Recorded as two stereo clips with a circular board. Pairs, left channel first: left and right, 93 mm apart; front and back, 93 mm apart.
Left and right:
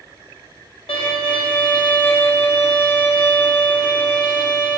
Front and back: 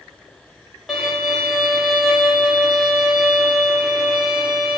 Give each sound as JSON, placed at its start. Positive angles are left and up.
{"t": 0.9, "sound": "a violin", "azimuth_deg": 95, "distance_m": 0.8}